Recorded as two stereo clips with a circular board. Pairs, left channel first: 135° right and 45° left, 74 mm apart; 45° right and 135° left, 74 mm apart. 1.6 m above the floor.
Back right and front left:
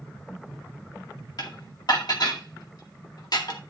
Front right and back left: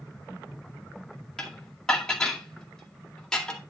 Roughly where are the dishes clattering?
Behind right.